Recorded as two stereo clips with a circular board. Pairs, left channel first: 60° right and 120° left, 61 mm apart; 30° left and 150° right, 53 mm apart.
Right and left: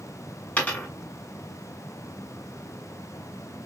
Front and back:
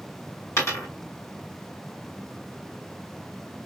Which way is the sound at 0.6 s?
5° left.